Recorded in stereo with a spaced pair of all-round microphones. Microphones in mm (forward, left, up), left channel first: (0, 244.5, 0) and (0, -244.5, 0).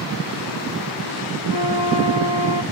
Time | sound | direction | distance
1.5 | a flute | 75° left (ahead or behind) | 1.8 m